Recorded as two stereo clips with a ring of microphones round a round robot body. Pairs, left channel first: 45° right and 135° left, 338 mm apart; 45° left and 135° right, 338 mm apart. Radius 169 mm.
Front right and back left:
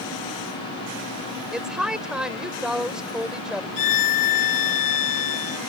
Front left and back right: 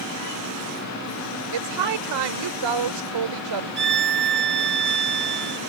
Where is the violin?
75° right.